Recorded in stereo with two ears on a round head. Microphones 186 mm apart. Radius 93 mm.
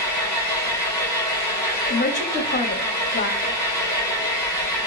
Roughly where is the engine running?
Right.